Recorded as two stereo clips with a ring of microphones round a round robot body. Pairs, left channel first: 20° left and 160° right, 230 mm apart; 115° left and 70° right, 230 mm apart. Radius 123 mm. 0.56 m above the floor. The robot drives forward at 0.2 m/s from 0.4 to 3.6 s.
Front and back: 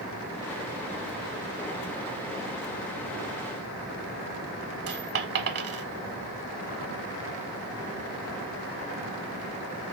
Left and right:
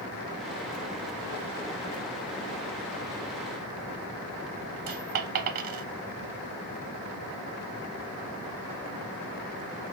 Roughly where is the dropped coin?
Behind right.